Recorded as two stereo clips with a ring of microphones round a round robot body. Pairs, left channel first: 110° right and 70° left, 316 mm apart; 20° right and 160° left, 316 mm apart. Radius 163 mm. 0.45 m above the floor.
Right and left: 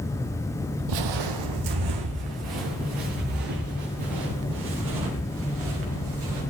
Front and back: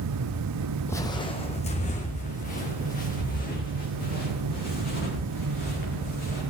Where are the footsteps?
60° left, 0.9 m; by 6.4 s 40° left, 6.5 m.